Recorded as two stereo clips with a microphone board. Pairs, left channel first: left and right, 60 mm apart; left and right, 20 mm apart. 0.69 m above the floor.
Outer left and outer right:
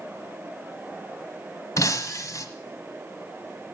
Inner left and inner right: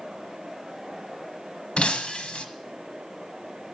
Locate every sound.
1.8 s breaking glass: 60° left (ahead or behind), 1.4 m